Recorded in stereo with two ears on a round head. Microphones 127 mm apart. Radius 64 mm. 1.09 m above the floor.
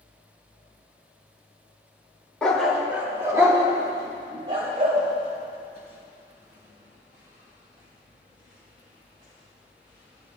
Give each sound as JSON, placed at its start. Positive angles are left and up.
{"t": 2.4, "sound": "a dog barking", "side_deg": 5, "distance_m": 1.1}